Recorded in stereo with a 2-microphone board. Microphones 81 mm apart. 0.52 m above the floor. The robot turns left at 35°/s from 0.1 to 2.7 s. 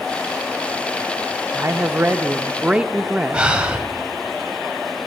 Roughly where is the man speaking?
Behind right.